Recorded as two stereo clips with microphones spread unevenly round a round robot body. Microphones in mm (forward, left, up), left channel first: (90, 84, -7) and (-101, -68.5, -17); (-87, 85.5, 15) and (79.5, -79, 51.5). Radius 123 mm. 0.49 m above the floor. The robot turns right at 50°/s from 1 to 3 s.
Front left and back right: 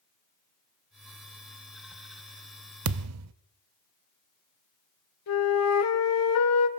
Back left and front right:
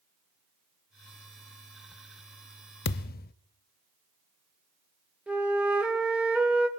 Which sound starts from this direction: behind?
A thud, at 2.9 s.